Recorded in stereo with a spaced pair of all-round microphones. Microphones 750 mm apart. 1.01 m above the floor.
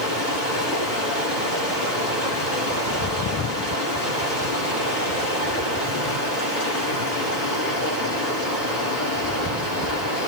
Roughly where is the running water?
Left.